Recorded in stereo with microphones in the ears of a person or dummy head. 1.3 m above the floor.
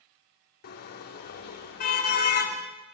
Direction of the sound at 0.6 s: 50° left (ahead or behind).